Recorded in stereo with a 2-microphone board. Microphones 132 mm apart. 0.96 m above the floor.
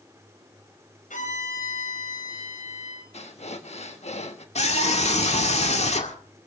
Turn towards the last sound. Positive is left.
turn(degrees=60)  # may be behind; listen again after turning